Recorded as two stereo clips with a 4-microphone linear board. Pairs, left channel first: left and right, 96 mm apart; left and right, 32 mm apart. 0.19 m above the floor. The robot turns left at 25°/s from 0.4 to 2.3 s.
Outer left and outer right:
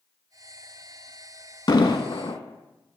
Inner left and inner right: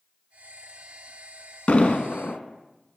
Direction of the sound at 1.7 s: 50° left (ahead or behind).